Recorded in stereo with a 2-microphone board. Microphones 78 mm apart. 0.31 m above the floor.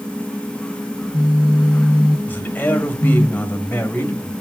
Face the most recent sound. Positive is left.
turn(degrees=25)  # may be behind; listen again after turning